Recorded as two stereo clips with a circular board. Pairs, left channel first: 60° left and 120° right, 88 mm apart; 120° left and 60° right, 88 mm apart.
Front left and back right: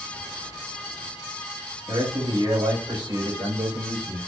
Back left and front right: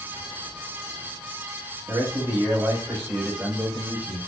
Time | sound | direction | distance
1.9 | a man speaking | 115° right | 3.5 m